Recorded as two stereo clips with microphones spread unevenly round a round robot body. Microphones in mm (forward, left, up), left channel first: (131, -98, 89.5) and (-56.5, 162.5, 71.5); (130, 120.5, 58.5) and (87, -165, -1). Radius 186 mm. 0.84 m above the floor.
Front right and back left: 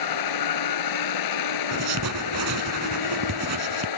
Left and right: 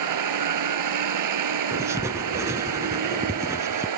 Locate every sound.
0.0 s a vehicle: 85° right
1.7 s writing: 175° left